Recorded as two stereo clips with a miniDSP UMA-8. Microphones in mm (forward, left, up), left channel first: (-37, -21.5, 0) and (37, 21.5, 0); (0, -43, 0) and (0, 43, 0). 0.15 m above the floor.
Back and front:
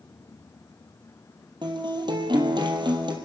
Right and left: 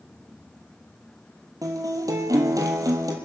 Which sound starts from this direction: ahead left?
A guitar, at 1.6 s.